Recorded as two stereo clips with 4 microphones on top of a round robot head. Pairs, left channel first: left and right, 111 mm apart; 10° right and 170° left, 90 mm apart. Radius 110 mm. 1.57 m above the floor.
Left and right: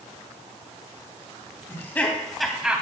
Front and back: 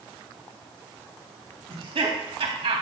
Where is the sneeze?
I don't hear a sneeze.